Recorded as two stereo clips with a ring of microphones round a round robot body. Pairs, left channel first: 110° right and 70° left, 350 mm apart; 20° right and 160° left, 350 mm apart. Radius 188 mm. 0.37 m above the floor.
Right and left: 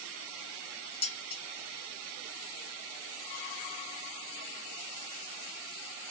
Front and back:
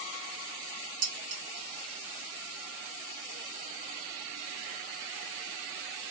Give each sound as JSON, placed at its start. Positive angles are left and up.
{"t": 1.0, "sound": "dishes clattering", "azimuth_deg": 175, "distance_m": 1.9}